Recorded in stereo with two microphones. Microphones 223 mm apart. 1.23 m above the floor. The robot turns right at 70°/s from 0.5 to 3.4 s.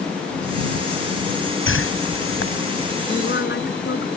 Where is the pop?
No pop in this recording.